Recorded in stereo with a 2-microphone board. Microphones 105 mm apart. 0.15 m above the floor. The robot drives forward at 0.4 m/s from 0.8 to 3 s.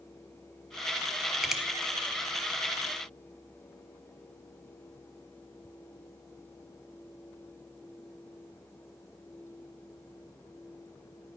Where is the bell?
I don't hear a bell.